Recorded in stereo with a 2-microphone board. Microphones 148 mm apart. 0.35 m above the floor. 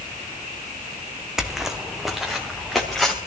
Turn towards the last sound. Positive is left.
turn(degrees=0)  # may be behind; listen again after turning